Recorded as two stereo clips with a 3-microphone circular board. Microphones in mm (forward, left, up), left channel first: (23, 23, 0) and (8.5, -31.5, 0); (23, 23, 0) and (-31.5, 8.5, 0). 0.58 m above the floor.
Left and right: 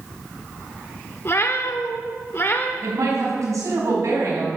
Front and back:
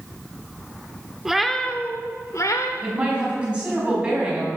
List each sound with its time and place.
1.2 s a cat meowing: 115° left, 0.9 m; by 2.7 s 20° left, 1.1 m
2.8 s a woman speaking: 95° right, 4 m